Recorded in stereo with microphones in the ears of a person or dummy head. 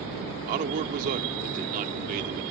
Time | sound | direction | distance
0.5 | a man speaking | 45° right (ahead or behind) | ?